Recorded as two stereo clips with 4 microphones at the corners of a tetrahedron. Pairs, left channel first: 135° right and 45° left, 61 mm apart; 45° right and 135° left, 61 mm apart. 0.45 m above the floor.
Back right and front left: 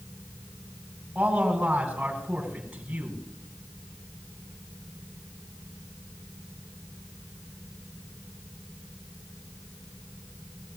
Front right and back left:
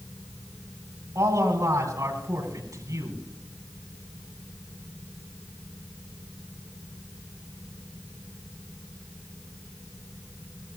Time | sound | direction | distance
1.1 | a man speaking | 120° left | 7.5 m